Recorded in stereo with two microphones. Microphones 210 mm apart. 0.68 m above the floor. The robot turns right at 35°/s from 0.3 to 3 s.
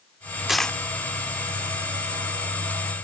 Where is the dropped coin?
Centre (ahead or behind); by 0.8 s 10° left (ahead or behind).